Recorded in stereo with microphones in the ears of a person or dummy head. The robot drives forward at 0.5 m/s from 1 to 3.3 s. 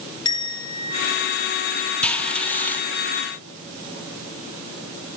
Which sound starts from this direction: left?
A bell, at 0.2 s.